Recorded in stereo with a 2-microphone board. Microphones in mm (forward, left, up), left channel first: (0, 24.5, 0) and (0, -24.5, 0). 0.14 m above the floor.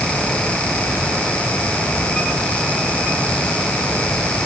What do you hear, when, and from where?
Only background noise.